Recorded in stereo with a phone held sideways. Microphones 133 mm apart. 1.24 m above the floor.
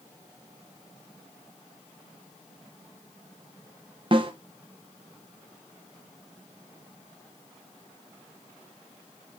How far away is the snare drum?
About 0.7 m.